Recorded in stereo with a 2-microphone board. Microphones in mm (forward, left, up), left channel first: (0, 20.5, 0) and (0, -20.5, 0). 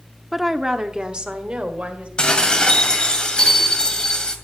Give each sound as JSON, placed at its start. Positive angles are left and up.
{"t": 0.3, "sound": "a woman speaking", "side_deg": -5, "distance_m": 0.8}
{"t": 2.2, "sound": "dishes clattering", "side_deg": 20, "distance_m": 2.0}